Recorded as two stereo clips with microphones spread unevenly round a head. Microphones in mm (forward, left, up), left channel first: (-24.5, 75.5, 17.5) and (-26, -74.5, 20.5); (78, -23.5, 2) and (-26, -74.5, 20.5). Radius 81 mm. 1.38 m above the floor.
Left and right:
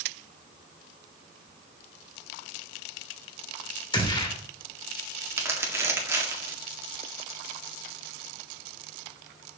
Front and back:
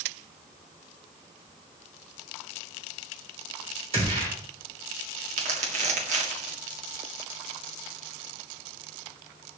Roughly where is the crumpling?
Behind.